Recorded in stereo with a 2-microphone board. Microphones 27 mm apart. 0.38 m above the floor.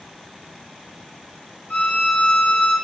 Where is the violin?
55° left (ahead or behind), 4.5 m.